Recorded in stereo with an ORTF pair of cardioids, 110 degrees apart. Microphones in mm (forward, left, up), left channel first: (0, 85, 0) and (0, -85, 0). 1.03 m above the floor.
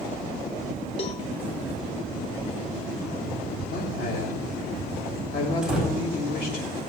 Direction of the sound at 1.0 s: 35° left.